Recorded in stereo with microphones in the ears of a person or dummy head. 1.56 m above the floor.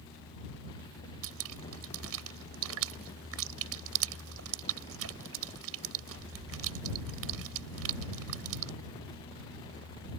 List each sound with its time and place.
1.2 s dripping: 80° right